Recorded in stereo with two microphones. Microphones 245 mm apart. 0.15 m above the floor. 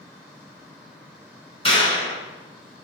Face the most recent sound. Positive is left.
turn(degrees=25)  # may be behind; listen again after turning